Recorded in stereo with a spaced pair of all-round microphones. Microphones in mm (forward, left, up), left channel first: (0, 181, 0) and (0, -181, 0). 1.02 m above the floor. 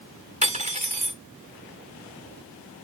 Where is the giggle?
I don't hear a giggle.